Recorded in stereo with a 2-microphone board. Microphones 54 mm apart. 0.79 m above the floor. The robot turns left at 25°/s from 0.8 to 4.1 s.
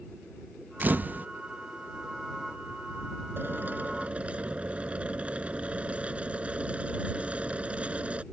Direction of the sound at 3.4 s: 40° right (ahead or behind).